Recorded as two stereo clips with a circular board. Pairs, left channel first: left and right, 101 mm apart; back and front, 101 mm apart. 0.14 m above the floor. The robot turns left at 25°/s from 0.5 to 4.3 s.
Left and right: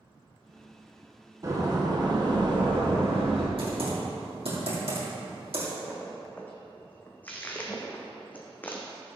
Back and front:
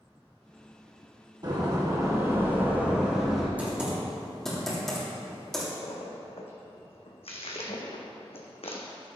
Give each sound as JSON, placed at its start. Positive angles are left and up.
{"t": 1.4, "sound": "a door slam", "azimuth_deg": -40, "distance_m": 2.5}
{"t": 3.6, "sound": "typing on a keyboard", "azimuth_deg": -75, "distance_m": 3.0}
{"t": 5.8, "sound": "a splash", "azimuth_deg": 160, "distance_m": 1.4}